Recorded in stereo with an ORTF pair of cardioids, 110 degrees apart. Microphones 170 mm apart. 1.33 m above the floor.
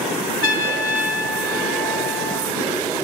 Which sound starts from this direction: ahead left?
A trumpet, at 0.4 s.